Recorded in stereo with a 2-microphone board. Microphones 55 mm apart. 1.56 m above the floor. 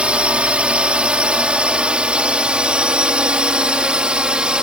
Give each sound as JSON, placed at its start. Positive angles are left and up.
{"t": 0.0, "sound": "a drone", "side_deg": -20}